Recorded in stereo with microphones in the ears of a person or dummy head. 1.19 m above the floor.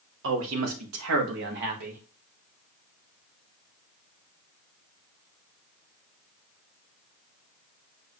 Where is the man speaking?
70° right (ahead or behind), 1.1 m; by 2.0 s 45° right (ahead or behind), 1.1 m.